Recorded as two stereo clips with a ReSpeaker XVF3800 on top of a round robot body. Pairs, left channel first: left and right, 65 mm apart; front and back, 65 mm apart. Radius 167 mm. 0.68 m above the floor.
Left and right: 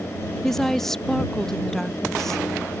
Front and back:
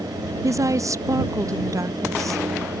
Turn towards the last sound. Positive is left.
turn(degrees=170)